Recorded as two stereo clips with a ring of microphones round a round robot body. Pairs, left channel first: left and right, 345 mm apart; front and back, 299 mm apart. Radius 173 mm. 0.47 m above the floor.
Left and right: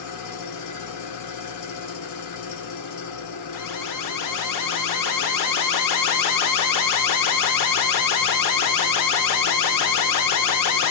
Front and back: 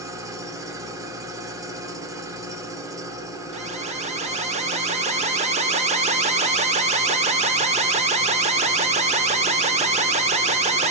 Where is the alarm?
115° left, 0.8 m.